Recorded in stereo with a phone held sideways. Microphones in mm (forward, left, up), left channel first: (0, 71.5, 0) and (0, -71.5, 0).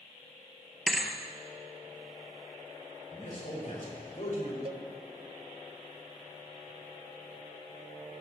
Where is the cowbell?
40° right (ahead or behind), 0.5 m.